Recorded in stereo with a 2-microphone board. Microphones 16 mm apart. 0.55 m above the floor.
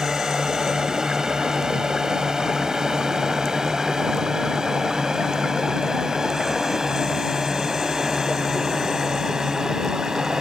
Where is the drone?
45° right (ahead or behind).